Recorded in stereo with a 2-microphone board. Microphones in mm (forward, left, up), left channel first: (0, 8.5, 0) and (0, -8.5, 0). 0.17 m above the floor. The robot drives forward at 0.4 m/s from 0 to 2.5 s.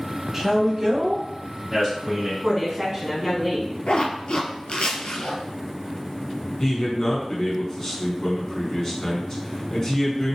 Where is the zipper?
75° left (ahead or behind), 0.8 m.